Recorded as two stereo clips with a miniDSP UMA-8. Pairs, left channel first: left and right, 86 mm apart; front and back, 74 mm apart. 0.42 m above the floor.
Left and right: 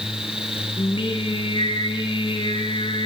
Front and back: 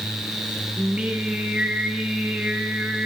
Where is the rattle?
I don't hear a rattle.